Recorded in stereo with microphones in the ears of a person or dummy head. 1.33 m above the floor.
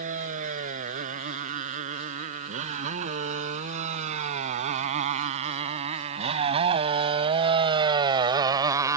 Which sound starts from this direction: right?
A motorcycle, at 0.0 s.